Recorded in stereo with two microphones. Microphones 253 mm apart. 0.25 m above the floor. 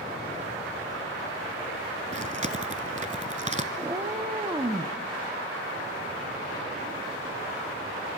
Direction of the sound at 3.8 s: 15° right (ahead or behind).